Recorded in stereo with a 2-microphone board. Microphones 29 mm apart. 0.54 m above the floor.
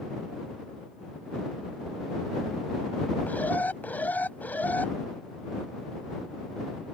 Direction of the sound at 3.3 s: 75° left (ahead or behind).